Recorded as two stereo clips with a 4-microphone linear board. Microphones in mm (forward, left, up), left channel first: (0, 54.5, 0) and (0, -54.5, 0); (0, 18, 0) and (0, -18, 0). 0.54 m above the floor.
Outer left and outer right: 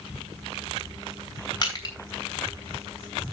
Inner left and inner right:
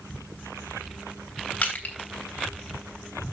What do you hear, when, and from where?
1.6 s crushing: 40° left (ahead or behind), 3 m